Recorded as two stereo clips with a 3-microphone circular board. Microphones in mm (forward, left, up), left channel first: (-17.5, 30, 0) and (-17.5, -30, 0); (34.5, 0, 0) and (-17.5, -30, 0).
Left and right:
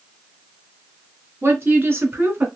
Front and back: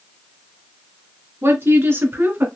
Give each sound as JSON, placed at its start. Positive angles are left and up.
{"t": 1.4, "sound": "a woman speaking", "azimuth_deg": -130, "distance_m": 2.5}